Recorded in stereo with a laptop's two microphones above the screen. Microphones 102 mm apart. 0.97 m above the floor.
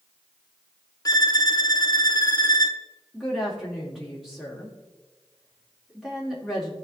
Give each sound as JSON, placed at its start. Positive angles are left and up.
{"t": 1.1, "sound": "a violin", "side_deg": 40, "distance_m": 0.6}
{"t": 3.1, "sound": "a woman speaking", "side_deg": -5, "distance_m": 2.5}